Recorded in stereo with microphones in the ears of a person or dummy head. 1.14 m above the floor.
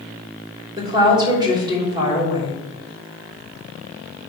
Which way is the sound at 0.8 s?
25° right (ahead or behind).